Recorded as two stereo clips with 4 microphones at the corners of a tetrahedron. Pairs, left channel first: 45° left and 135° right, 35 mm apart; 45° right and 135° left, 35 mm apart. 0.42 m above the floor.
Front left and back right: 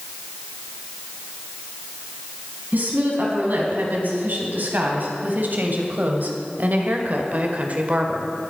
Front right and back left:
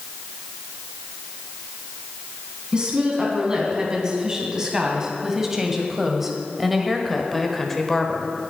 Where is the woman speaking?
160° right, 4 m; by 8.3 s 105° right, 1.4 m.